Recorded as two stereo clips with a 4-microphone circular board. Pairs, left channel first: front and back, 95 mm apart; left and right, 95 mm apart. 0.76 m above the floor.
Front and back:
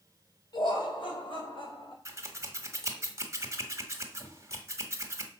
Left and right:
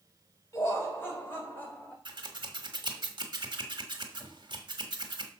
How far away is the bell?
I don't hear a bell.